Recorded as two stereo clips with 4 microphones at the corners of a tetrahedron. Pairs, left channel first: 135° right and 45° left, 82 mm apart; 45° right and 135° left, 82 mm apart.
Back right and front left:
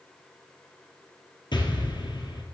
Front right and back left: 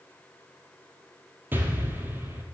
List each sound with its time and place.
1.5 s an explosion: 160° right, 1.9 m